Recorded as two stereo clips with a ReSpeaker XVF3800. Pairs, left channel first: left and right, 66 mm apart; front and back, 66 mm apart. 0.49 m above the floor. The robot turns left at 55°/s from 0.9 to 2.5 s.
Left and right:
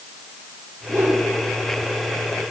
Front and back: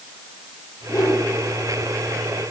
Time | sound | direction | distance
0.9 | a whoosh | 35° right | 4 m